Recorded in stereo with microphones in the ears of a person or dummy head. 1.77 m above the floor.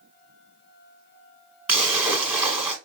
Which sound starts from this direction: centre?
A splash, at 1.7 s.